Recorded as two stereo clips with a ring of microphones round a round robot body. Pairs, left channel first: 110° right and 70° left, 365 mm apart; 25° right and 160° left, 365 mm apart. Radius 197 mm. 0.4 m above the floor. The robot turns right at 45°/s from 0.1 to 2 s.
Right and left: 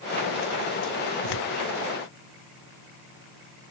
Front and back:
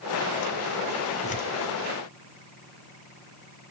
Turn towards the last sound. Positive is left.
turn(degrees=-60)